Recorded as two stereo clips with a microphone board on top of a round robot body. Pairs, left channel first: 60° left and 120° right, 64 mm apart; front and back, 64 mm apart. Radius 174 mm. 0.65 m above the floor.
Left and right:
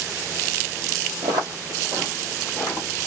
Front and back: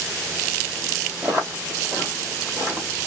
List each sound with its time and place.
1.2 s footsteps: 110° right, 1.0 m; by 2.9 s 110° left, 1.0 m